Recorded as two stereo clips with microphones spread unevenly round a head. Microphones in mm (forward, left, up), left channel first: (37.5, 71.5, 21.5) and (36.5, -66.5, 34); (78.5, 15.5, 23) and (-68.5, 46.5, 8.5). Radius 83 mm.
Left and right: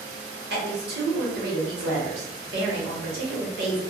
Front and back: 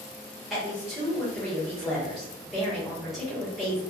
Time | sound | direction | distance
0.5 | a woman speaking | 105° right | 1.1 m